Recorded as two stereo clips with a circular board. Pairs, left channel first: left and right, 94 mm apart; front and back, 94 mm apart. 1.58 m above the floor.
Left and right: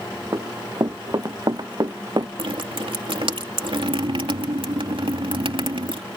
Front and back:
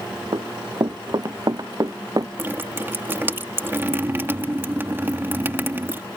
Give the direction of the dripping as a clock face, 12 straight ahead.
4 o'clock.